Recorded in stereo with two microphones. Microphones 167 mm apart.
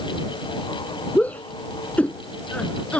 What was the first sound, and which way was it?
A shout, 10° left (ahead or behind).